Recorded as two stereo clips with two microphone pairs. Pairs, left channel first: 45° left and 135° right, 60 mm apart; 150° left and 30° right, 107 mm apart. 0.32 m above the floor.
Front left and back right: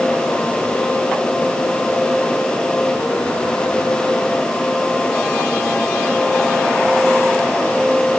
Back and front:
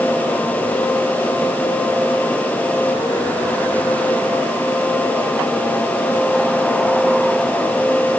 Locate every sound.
Only background noise.